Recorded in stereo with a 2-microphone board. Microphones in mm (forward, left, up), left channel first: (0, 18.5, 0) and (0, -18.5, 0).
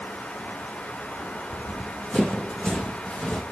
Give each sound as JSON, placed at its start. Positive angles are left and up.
{"t": 1.5, "sound": "running footsteps", "side_deg": 45, "distance_m": 2.5}